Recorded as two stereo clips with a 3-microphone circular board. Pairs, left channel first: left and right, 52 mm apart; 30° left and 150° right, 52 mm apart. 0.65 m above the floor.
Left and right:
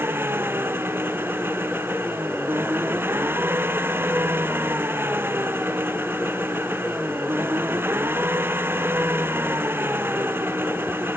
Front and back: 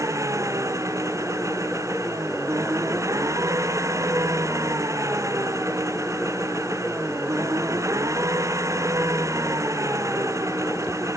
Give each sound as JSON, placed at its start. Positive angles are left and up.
{"t": 0.0, "sound": "an engine running", "azimuth_deg": -135}